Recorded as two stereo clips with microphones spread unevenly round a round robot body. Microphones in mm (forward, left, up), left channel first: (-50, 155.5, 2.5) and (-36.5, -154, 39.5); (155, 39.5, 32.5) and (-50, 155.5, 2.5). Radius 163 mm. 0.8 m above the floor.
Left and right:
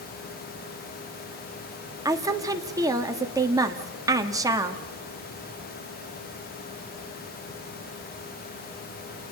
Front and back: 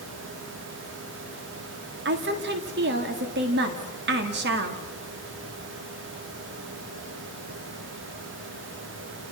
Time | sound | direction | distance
2.0 | a woman speaking | 170° right | 1.7 m